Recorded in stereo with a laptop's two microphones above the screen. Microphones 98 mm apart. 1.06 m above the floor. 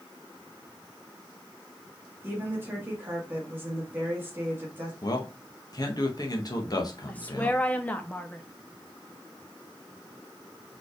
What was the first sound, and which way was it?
A woman speaking, 20° right (ahead or behind).